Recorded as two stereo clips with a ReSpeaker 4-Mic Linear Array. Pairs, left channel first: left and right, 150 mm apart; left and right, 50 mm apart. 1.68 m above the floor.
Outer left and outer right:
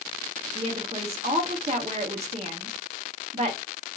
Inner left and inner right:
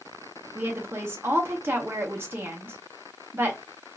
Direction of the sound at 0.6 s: 45° right (ahead or behind).